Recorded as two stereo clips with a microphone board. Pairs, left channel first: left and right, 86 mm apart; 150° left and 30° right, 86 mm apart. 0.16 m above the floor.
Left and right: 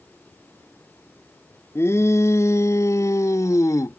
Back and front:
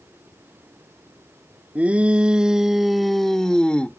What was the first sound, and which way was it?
A shout, 40° left.